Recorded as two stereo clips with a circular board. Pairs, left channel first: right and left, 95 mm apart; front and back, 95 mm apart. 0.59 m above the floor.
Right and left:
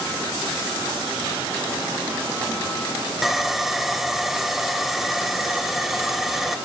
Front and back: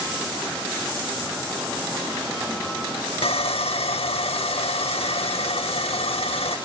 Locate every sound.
3.2 s sawing: 5° left, 1.0 m